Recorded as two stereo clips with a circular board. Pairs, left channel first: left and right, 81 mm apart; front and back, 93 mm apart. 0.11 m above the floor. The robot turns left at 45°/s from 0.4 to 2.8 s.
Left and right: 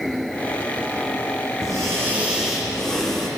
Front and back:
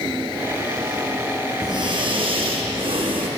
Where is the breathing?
135° right, 1.6 m; by 3.3 s 175° left, 1.6 m.